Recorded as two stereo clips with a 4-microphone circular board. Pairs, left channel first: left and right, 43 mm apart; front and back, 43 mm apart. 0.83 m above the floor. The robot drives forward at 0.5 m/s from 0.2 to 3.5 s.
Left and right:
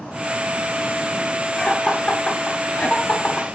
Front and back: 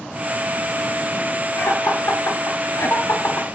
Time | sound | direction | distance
1.6 | laughter | 20° left | 2.5 m